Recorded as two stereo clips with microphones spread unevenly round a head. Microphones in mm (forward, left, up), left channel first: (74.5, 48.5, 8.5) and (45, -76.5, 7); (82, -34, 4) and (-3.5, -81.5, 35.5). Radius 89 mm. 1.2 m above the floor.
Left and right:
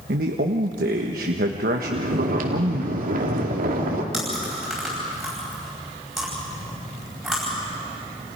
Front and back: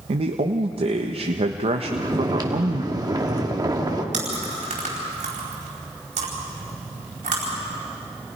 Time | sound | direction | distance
0.1 | a man speaking | 125° right | 1.3 m
1.8 | snoring | 100° right | 2.5 m
4.1 | chewing | 165° left | 4.5 m